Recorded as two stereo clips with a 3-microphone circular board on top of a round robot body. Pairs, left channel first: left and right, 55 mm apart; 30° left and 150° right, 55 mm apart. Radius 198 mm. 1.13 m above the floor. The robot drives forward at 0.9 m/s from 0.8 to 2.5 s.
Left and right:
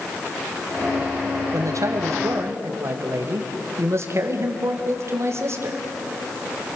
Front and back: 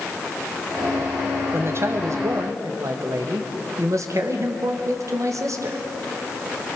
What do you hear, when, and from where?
1.5 s a man speaking: 105° right, 1.8 m; by 5.8 s 130° right, 2 m